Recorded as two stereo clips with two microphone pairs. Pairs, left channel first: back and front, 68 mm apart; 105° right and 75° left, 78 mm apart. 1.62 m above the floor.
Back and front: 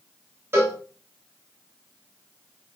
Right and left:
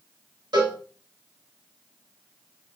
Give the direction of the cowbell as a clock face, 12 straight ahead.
10 o'clock.